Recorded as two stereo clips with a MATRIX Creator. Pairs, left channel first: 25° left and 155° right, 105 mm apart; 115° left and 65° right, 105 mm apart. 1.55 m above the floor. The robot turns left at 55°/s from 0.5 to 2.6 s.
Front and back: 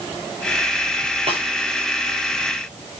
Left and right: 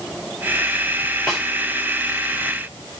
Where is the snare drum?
165° right, 9 m; by 1.4 s 170° right, 9 m.